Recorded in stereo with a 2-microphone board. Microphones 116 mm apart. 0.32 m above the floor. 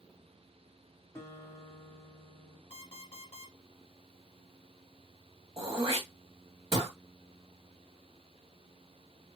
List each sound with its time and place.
1.1 s a guitar: 25° left (ahead or behind), 2 m
2.7 s an alarm clock: 50° left (ahead or behind), 2.5 m
5.6 s throat clearing: 40° right (ahead or behind), 1.7 m